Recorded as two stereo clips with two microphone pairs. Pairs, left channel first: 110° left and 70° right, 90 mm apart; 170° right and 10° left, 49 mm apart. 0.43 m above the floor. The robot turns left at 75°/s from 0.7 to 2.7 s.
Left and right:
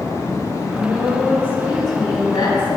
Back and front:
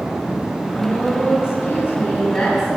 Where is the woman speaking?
130° right, 2.5 m; by 2.8 s 80° left, 2.5 m.